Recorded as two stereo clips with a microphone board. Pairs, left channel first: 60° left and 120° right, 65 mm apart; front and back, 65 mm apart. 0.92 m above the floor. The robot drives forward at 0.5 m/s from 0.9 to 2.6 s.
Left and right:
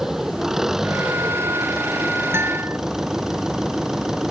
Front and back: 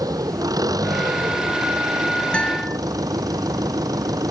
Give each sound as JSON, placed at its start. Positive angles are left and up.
{"t": 0.0, "sound": "an engine running", "azimuth_deg": 155}
{"t": 2.3, "sound": "a guitar", "azimuth_deg": -75}